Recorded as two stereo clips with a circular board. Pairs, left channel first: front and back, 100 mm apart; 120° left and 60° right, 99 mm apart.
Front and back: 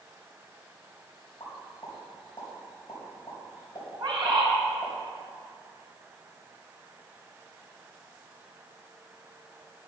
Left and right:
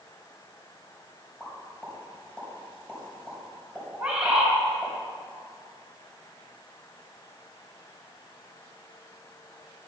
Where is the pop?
45° left, 3.5 m.